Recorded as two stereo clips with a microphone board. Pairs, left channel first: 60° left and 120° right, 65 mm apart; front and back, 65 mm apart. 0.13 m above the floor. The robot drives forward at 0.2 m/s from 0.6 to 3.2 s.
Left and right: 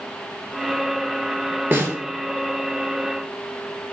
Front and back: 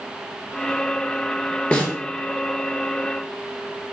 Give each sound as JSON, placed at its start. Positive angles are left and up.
{"t": 1.7, "sound": "a snare drum", "azimuth_deg": -70, "distance_m": 0.6}